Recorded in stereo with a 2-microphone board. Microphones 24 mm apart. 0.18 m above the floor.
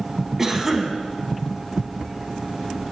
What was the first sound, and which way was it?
A cough, 15° right (ahead or behind).